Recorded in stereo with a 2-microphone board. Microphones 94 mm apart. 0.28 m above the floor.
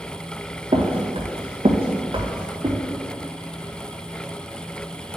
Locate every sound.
0.7 s footsteps: 70° right (ahead or behind), 1.3 m; by 2.8 s 50° right (ahead or behind), 1.6 m